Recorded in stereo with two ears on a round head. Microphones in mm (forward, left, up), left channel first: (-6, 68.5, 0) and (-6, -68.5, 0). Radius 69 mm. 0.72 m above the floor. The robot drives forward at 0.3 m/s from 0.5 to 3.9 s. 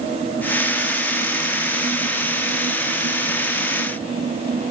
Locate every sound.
Only background noise.